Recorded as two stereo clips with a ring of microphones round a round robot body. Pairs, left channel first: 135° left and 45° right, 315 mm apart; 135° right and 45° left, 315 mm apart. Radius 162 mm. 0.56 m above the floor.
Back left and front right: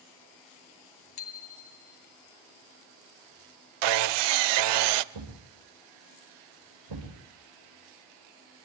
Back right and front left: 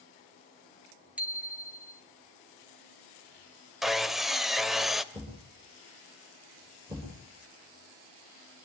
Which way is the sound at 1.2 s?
130° left.